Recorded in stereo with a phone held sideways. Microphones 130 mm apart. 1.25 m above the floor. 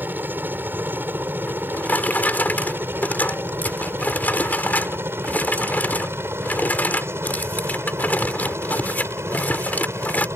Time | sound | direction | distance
0.0 | a helicopter | 15° right (ahead or behind) | ?
1.5 | a drawer | 15° left (ahead or behind) | ?